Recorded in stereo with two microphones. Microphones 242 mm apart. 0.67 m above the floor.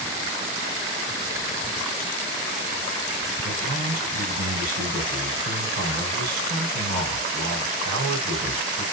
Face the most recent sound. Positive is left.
turn(degrees=-80)